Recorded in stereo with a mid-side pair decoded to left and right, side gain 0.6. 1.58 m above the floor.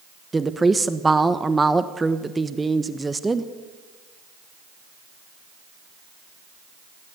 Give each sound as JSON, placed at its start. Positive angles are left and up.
{"t": 0.3, "sound": "a woman speaking", "azimuth_deg": -15, "distance_m": 1.2}